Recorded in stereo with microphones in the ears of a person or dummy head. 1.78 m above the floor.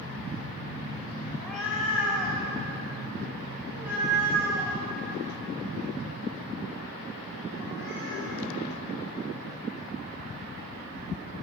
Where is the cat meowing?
Centre (ahead or behind), 3 m; by 8.3 s 15° right (ahead or behind), 8 m.